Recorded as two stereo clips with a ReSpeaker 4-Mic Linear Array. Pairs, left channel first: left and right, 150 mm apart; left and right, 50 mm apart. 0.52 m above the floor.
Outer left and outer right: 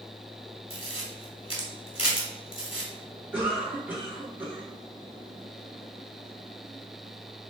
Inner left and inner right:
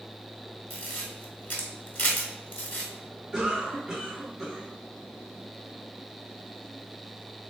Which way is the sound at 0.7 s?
40° left (ahead or behind).